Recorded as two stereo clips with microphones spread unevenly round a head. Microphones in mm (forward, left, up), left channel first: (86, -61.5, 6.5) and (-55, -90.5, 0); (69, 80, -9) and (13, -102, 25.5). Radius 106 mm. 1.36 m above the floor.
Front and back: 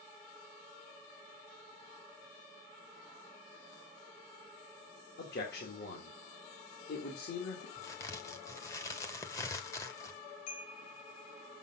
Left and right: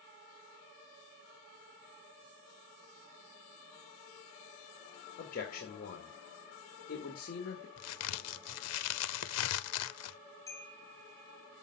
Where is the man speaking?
30° left, 1.9 m.